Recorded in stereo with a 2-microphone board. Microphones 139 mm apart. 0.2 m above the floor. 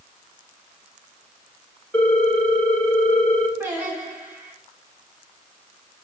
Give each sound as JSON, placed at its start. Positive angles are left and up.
{"t": 1.9, "sound": "a ringtone", "side_deg": 10, "distance_m": 0.5}
{"t": 3.6, "sound": "singing", "side_deg": -15, "distance_m": 1.2}